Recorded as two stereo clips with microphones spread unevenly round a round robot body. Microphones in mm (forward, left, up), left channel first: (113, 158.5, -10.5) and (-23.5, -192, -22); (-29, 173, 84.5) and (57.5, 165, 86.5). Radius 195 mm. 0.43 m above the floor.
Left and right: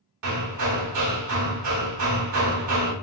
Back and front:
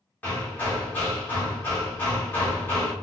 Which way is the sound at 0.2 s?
125° right.